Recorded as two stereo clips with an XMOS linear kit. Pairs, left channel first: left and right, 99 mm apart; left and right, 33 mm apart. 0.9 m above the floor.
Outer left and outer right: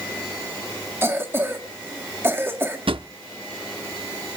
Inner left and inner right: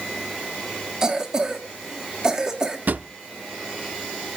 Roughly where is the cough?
Right.